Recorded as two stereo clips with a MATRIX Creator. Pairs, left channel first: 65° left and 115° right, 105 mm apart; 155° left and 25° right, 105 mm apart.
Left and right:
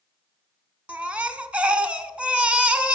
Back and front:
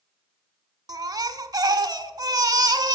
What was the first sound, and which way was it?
A baby crying, 40° right.